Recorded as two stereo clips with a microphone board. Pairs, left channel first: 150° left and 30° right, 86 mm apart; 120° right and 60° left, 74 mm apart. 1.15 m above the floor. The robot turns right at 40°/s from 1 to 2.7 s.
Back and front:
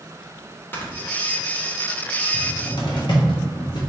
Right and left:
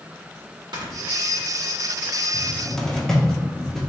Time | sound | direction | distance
0.7 | snoring | 85° left | 1.2 m
2.3 | a cupboard door | 145° left | 1.0 m